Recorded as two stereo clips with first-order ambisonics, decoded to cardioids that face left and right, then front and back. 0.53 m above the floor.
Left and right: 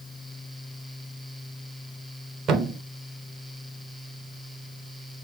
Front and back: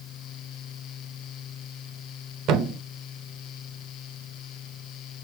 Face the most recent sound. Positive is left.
turn(degrees=-145)